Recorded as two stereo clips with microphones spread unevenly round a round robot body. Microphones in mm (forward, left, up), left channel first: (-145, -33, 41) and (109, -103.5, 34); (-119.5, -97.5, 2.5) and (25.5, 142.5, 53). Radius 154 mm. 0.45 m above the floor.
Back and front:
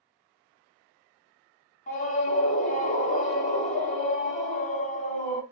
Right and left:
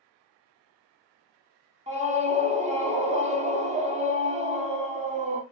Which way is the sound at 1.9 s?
125° left.